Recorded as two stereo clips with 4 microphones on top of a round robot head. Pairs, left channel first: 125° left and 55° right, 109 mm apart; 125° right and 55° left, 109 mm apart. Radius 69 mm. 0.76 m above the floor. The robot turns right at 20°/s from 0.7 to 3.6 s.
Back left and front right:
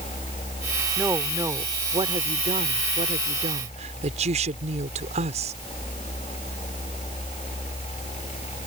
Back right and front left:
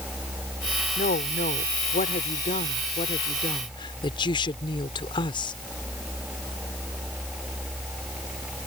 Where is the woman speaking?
130° right; by 5.5 s 80° right.